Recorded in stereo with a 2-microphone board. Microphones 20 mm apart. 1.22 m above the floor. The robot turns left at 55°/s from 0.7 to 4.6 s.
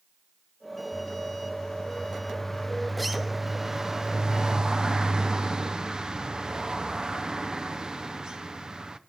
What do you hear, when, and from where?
0.9 s a bird: 25° left (ahead or behind), 0.6 m; by 9.0 s 30° right (ahead or behind), 0.6 m